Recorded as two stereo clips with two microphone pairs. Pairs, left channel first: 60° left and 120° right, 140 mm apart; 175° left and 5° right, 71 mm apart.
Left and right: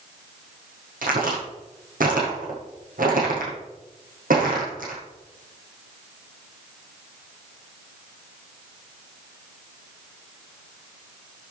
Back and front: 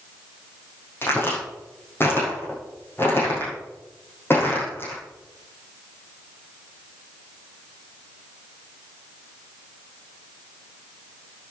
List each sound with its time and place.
1.0 s a crack: 125° right, 7.5 m